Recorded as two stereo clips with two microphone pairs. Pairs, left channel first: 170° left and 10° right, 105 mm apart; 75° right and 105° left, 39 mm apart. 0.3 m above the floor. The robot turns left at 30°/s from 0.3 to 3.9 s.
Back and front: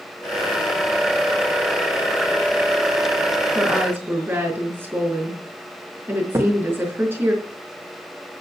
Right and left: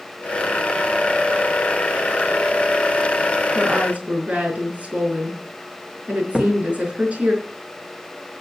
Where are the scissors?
No scissors in this recording.